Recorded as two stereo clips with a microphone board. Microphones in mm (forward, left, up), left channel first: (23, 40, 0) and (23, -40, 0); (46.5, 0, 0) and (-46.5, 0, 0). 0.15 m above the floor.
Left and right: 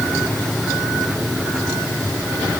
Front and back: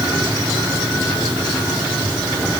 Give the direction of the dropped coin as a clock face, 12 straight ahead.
No dropped coin in this recording.